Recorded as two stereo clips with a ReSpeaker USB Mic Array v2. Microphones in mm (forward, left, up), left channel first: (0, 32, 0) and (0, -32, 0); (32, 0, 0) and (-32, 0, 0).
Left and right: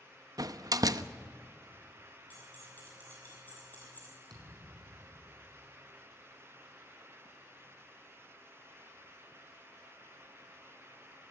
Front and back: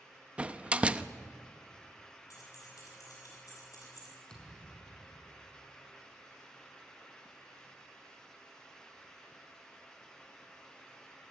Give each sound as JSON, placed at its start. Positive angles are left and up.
{"t": 0.4, "sound": "a door slam", "azimuth_deg": -110, "distance_m": 0.7}
{"t": 2.3, "sound": "keys jangling", "azimuth_deg": 30, "distance_m": 8.0}
{"t": 4.3, "sound": "a thud", "azimuth_deg": -80, "distance_m": 5.5}